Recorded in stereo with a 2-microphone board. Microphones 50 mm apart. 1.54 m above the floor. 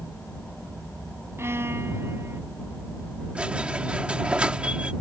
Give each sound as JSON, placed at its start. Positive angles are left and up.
{"t": 1.4, "sound": "a violin", "side_deg": -55}
{"t": 3.4, "sound": "a squeak", "side_deg": -20}